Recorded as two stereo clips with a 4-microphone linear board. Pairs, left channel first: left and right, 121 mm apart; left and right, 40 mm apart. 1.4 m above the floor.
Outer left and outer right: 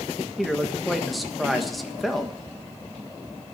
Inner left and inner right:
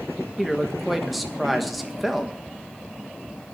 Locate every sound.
0.4 s a man speaking: centre (ahead or behind), 1.4 m